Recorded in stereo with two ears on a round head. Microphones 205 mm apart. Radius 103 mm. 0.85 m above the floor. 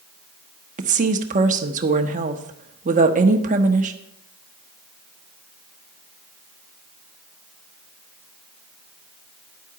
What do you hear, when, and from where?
0.8 s a woman speaking: 35° right (ahead or behind), 1.1 m